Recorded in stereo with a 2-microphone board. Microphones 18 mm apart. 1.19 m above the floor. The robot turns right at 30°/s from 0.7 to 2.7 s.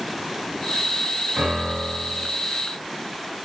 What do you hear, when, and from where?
1.4 s a piano: 75° right (ahead or behind), 5 m; by 2.3 s 65° right (ahead or behind), 5 m